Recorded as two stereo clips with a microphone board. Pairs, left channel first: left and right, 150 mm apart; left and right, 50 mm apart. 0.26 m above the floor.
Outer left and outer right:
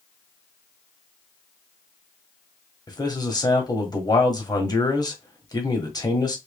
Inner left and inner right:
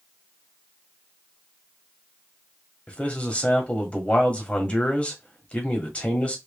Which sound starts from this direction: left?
A man speaking, at 2.9 s.